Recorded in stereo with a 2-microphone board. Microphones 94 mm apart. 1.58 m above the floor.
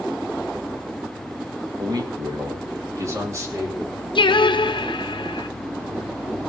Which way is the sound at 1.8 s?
50° right (ahead or behind).